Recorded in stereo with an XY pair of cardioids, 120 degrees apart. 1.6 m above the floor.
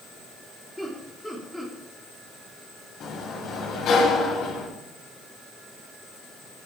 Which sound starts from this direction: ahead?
Laughter, at 0.8 s.